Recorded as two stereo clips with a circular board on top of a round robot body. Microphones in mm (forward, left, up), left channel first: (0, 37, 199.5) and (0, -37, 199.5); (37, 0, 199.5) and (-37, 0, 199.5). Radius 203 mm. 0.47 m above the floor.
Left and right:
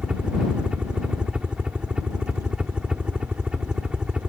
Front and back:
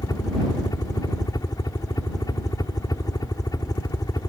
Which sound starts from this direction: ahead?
A helicopter, at 0.0 s.